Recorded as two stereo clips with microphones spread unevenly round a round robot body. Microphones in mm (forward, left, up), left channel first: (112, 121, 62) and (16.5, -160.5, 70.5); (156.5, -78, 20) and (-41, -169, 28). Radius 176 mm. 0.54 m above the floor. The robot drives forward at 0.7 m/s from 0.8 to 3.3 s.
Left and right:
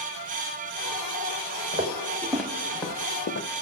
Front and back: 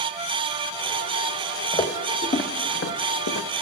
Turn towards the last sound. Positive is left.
turn(degrees=25)